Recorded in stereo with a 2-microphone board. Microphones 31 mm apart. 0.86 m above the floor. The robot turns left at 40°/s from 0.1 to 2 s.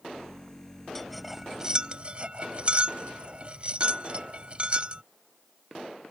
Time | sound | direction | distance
0.9 | cutlery clinking | 10° left (ahead or behind) | ?